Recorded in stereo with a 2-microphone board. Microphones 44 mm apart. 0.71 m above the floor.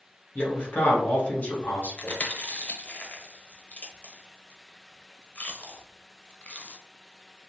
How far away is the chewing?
About 0.6 m.